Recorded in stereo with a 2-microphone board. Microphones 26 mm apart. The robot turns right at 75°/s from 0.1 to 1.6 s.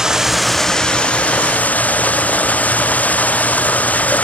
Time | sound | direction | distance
0.0 | running water | 25° right | ?